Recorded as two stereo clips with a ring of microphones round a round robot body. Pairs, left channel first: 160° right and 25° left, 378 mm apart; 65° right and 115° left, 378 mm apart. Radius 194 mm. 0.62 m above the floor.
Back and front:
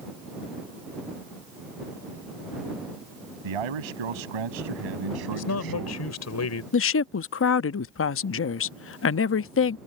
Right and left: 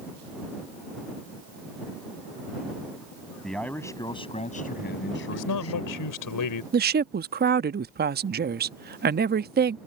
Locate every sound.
3.4 s a man speaking: 20° left; by 6.1 s 20° right
5.3 s a man speaking: 105° right
6.7 s a woman speaking: 165° left